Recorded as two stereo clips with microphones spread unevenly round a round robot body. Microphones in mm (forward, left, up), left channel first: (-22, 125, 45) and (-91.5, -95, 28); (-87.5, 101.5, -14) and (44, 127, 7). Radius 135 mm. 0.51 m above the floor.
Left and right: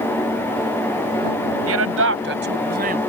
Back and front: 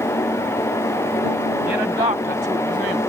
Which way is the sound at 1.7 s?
70° right.